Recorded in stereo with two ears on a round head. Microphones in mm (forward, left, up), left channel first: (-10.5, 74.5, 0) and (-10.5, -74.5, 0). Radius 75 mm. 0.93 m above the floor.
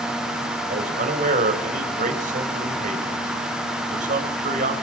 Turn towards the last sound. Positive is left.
turn(degrees=-50)  # may be behind; listen again after turning